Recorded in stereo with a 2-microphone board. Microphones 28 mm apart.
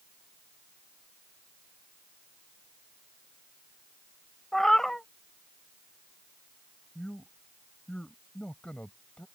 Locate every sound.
4.5 s a cat meowing: 15° left (ahead or behind)
7.0 s a man speaking: 50° left (ahead or behind)